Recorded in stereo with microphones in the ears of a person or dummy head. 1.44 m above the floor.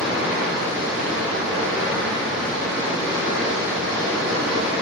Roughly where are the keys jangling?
No keys jangling in this recording.